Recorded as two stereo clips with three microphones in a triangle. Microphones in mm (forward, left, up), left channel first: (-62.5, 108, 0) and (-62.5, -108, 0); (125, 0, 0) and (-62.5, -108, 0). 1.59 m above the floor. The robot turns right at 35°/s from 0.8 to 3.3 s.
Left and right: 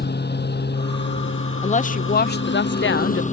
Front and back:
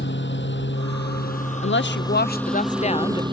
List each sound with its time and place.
0.0 s a lawn mower: 55° left; by 3.3 s 145° left
1.6 s a woman speaking: 40° left; by 3.2 s 95° left